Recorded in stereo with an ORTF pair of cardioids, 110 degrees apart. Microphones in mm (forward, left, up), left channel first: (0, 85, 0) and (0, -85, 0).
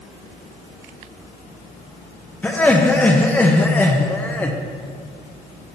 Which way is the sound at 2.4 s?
10° left.